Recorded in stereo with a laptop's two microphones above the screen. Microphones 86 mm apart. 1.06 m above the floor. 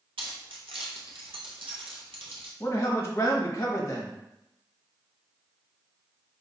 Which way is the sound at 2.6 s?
35° left (ahead or behind).